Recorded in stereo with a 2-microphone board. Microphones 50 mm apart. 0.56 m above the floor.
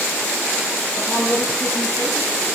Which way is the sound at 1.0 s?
40° left (ahead or behind).